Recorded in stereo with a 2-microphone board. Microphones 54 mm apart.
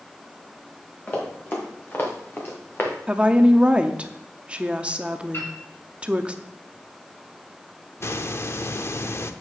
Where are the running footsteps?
30° left (ahead or behind), 3.5 m; by 3.0 s 40° left (ahead or behind), 2.5 m.